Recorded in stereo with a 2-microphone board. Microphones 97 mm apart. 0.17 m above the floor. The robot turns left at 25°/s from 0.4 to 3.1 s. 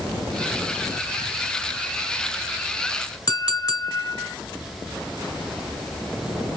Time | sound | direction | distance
3.3 | a clink | 40° left (ahead or behind) | 1.6 m